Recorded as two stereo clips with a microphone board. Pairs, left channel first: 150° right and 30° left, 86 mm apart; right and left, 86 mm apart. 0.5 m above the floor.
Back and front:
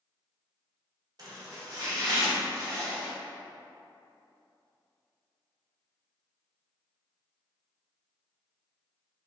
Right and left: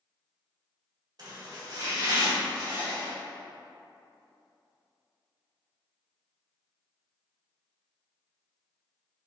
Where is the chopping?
60° left, 1.5 m.